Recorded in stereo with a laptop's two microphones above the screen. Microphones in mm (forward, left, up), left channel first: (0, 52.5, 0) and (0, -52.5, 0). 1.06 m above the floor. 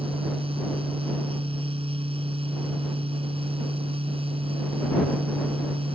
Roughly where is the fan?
Right.